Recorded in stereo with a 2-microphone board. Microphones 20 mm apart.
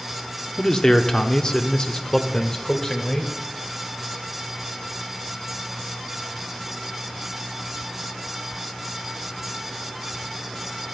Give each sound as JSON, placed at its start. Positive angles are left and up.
{"t": 0.6, "sound": "a man speaking", "side_deg": 35, "distance_m": 1.3}